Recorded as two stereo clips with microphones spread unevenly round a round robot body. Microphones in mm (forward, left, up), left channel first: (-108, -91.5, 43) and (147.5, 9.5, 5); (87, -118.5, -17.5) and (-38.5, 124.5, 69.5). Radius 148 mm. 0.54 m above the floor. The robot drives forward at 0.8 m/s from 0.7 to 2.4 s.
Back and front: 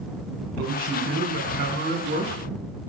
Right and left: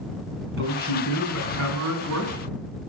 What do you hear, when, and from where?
0.6 s a man speaking: 75° left, 4.5 m; by 2.3 s 90° left, 4 m